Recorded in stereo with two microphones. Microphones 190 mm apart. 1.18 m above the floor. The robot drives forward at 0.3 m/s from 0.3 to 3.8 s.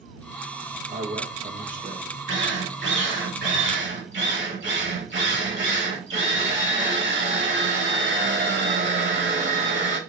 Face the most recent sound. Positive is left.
turn(degrees=-75)  # may be behind; listen again after turning